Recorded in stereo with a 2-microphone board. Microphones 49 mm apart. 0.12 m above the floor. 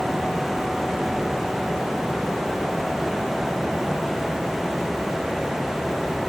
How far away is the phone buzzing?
I don't hear a phone buzzing.